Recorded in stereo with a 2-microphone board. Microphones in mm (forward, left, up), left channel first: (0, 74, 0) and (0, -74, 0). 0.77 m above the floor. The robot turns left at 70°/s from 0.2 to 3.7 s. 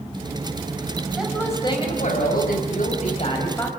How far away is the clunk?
I don't hear a clunk.